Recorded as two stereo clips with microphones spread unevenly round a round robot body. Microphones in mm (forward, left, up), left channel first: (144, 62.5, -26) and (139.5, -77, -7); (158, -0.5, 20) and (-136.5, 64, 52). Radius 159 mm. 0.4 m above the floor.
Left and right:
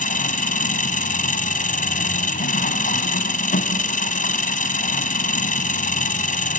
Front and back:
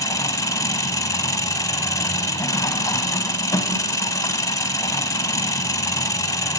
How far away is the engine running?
About 1.4 m.